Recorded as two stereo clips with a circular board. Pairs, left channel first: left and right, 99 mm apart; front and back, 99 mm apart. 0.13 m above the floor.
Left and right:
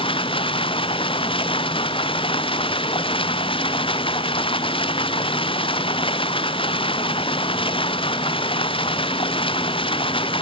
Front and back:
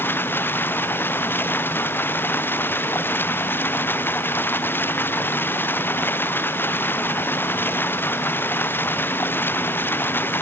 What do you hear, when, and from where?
0.0 s running water: 70° left